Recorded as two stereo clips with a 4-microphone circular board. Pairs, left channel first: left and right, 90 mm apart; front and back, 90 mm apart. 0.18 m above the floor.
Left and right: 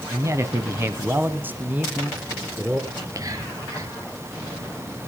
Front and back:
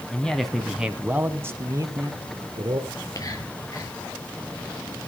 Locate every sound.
0.1 s a man speaking: 70° right, 1.5 m; by 2.8 s 170° right, 2 m
2.9 s whispering: 45° right, 4 m